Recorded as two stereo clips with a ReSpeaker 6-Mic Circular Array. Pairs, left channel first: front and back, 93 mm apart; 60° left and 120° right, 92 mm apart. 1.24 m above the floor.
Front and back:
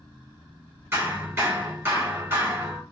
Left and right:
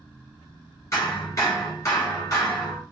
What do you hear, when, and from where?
0.9 s hammering: 110° left, 2 m